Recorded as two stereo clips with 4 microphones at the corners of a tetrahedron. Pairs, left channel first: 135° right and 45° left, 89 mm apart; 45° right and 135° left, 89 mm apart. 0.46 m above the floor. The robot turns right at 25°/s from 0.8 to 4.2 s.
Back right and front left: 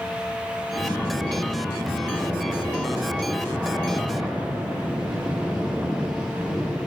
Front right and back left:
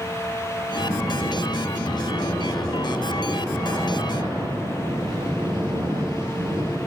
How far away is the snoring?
About 1.7 m.